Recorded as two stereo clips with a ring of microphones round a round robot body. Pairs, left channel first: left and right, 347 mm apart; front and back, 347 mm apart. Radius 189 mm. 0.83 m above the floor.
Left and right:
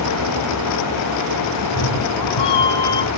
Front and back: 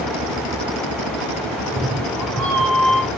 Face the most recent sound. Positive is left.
turn(degrees=85)